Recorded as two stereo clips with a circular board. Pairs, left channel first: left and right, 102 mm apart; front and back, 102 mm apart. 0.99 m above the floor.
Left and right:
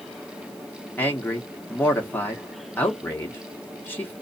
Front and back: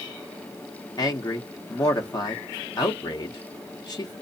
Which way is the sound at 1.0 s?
25° left.